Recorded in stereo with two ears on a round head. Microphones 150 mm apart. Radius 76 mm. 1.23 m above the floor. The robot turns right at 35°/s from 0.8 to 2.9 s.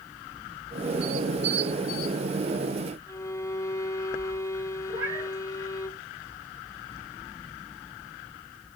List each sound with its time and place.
3.1 s a violin: 20° left (ahead or behind), 1.3 m
4.9 s a cat meowing: 25° right (ahead or behind), 8 m